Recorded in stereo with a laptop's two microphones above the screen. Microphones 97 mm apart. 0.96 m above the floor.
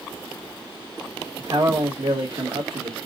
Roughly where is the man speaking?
Right.